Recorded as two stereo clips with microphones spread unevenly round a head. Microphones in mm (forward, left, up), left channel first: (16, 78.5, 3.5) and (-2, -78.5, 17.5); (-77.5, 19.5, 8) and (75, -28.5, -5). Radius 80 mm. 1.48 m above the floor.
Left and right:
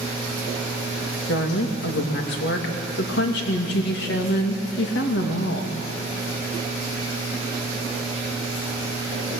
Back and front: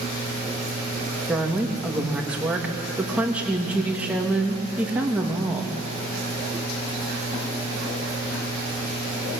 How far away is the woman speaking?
About 2.5 m.